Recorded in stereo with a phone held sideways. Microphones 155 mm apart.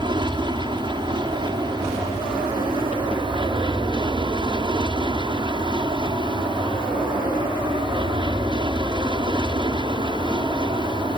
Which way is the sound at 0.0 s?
30° right (ahead or behind).